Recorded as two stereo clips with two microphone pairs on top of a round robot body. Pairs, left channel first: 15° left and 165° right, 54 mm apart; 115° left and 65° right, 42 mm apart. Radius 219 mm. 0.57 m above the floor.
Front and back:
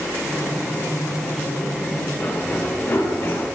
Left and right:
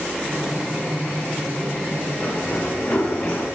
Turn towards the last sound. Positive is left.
turn(degrees=45)